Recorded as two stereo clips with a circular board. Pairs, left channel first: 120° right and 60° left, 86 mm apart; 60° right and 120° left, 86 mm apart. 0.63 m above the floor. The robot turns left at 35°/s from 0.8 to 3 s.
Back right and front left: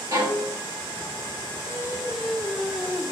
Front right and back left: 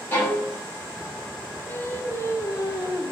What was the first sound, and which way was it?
A violin, 5° left.